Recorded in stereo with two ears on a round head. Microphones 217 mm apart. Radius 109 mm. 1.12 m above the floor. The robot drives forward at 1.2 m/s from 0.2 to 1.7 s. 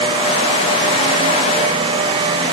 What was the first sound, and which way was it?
Only background noise.